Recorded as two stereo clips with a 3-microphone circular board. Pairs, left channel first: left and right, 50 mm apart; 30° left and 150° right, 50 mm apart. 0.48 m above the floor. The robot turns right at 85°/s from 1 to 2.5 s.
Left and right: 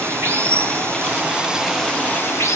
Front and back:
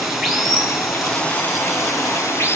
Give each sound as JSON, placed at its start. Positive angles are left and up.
{"t": 0.0, "sound": "running water", "azimuth_deg": -60, "distance_m": 4.5}